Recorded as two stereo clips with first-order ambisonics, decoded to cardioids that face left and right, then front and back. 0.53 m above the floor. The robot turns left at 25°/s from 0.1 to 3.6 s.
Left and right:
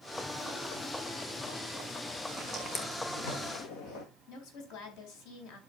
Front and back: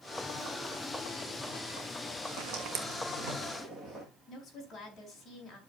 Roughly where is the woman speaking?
Left.